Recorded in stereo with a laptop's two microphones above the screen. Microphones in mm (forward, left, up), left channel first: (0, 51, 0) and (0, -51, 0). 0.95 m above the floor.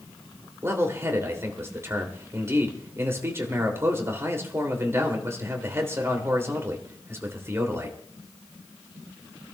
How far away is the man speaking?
About 3 m.